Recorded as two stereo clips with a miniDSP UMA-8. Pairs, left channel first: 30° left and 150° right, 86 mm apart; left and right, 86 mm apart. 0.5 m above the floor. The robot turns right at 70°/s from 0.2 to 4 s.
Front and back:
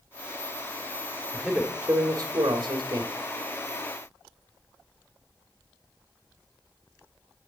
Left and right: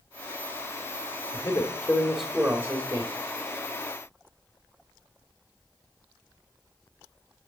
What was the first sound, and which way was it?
A man speaking, 120° left.